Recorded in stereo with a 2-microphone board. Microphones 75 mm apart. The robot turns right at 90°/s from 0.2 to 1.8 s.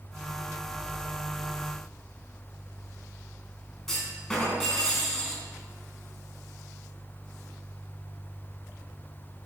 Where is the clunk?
5° left (ahead or behind), 4 m.